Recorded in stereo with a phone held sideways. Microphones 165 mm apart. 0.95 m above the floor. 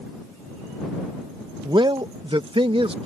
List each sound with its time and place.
1.6 s a man speaking: 25° right (ahead or behind); by 3.1 s 35° right (ahead or behind)